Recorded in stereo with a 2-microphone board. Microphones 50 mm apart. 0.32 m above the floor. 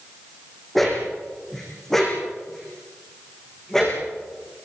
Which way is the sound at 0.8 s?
Centre (ahead or behind).